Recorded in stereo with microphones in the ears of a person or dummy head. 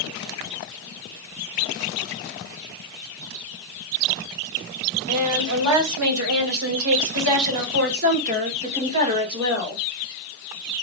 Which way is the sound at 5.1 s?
85° right.